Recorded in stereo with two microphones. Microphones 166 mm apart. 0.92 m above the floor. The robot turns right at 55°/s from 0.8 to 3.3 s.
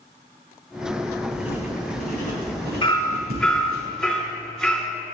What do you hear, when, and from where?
1.3 s writing: centre (ahead or behind), 4 m; by 3.8 s 70° right (ahead or behind), 4 m
2.8 s hammering: 30° left (ahead or behind), 1.8 m; by 4.9 s centre (ahead or behind), 1.8 m